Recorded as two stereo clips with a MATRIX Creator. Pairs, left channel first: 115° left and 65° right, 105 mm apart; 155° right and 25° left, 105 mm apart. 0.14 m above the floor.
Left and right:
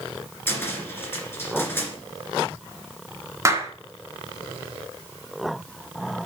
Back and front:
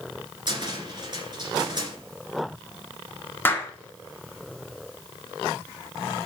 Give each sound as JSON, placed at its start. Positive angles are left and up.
{"t": 0.5, "sound": "a cupboard door", "azimuth_deg": 50, "distance_m": 2.5}
{"t": 3.5, "sound": "a clap", "azimuth_deg": -105, "distance_m": 1.3}